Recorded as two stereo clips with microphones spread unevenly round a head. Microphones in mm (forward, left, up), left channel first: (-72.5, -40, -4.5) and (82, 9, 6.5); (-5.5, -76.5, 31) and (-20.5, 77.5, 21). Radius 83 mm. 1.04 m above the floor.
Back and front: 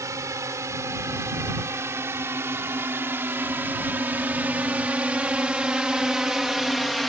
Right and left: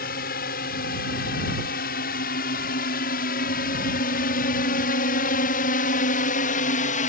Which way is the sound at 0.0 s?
55° right.